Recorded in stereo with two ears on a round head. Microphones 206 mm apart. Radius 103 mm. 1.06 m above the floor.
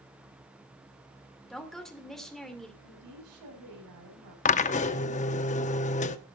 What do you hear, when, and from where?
1.5 s a woman speaking: centre (ahead or behind), 2.5 m
2.8 s a woman speaking: 80° right, 7.5 m
4.5 s a drill: 30° left (ahead or behind), 0.7 m